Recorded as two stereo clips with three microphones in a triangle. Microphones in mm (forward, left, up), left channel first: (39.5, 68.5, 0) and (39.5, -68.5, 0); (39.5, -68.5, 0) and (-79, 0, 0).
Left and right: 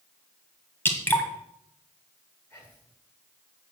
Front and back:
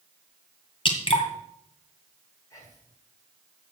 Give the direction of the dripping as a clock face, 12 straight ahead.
11 o'clock.